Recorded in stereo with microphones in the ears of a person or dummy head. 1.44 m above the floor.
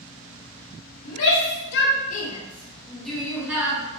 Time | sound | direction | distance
1.1 | a shout | 85° left | 1.1 m